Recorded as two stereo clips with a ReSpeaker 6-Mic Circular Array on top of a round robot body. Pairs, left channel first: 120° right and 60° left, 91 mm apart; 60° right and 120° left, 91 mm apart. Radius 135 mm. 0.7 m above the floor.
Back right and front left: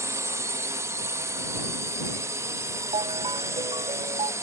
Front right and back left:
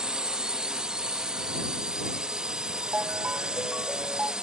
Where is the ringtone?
45° left.